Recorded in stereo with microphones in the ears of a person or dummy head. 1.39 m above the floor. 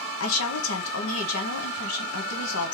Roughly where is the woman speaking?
Left.